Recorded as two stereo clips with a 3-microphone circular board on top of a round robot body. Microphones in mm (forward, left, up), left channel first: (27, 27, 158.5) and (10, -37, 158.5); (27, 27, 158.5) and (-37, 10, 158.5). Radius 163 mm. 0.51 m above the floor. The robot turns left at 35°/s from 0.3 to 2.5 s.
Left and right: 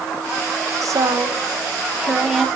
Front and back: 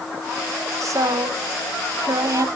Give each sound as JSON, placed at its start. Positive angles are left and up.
{"t": 0.8, "sound": "a woman speaking", "azimuth_deg": -135, "distance_m": 2.5}